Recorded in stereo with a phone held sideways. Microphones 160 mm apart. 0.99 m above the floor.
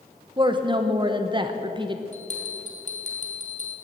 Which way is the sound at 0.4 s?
30° right (ahead or behind).